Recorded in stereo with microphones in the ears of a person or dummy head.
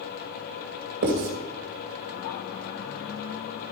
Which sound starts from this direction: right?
Writing, at 1.0 s.